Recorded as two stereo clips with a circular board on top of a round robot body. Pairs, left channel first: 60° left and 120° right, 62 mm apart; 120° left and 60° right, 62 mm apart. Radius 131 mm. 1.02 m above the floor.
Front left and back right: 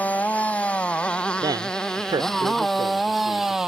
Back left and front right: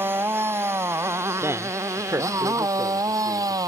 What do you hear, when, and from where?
0.0 s a motorcycle: 5° right; by 3.7 s 40° right
1.4 s a man speaking: 110° right